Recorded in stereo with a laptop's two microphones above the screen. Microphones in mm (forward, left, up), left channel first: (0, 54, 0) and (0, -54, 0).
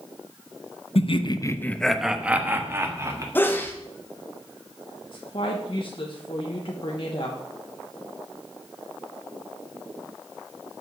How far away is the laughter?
About 0.8 m.